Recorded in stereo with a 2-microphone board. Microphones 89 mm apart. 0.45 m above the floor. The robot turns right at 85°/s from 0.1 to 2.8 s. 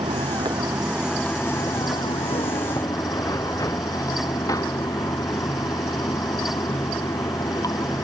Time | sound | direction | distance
0.0 | running water | 90° right | ?